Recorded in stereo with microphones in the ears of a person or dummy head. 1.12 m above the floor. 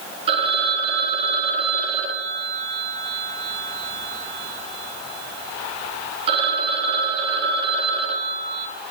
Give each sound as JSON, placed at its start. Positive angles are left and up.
{"t": 0.3, "sound": "a phone ringing", "side_deg": -35, "distance_m": 0.8}